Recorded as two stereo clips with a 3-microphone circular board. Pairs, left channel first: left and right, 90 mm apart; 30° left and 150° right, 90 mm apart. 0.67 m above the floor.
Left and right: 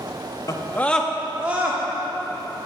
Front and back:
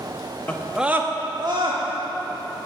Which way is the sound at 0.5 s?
90° left.